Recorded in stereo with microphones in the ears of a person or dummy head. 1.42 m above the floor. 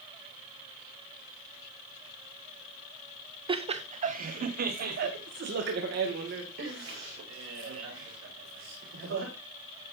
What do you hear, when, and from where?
3.5 s laughter: 30° right (ahead or behind), 0.7 m; by 9.3 s 75° right (ahead or behind), 3.5 m